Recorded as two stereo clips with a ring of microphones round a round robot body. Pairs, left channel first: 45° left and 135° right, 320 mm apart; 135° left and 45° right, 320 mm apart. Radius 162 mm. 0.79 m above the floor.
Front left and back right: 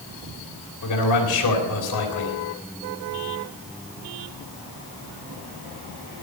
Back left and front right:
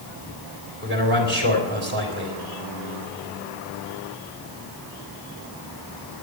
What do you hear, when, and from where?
0.8 s a man speaking: 10° left, 3.5 m